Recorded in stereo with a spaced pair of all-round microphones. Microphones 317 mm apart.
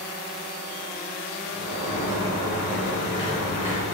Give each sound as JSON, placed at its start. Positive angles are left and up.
{"t": 1.5, "sound": "a sliding door", "side_deg": 75, "distance_m": 1.2}